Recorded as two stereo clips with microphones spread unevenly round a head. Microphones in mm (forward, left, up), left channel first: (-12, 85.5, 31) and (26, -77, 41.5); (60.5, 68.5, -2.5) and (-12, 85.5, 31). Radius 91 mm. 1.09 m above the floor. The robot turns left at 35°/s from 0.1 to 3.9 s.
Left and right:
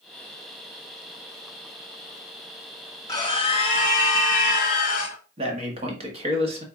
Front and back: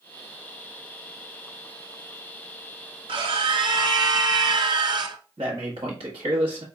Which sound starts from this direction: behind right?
A man speaking, at 5.4 s.